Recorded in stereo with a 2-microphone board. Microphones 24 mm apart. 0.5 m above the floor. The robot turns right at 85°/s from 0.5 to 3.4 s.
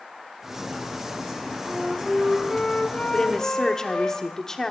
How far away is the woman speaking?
About 1.2 m.